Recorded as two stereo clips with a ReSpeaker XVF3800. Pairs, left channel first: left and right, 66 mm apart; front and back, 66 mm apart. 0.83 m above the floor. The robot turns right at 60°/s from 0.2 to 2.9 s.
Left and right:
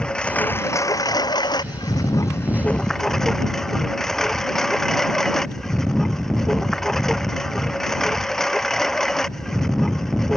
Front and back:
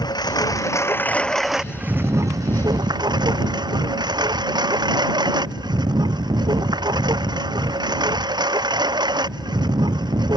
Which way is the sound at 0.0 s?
15° left.